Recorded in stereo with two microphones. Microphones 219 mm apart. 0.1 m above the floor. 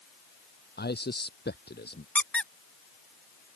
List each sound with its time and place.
0.8 s a man speaking: 50° left (ahead or behind)
2.1 s a squeak: 5° left (ahead or behind)